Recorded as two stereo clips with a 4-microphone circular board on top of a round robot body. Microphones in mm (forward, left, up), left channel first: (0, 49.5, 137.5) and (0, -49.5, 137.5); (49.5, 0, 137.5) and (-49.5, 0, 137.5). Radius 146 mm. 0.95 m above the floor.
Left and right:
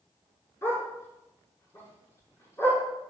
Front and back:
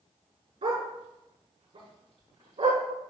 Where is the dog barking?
150° left, 5.5 m.